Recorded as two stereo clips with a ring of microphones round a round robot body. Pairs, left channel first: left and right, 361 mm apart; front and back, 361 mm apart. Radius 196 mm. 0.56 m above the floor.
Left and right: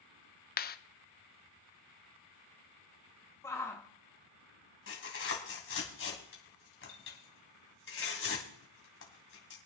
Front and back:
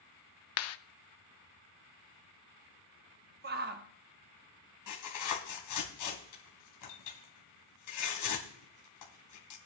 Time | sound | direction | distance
0.6 | a clap | 30° left | 0.6 m
3.4 | a shout | 165° left | 0.8 m
4.9 | tearing paper | 35° left | 3 m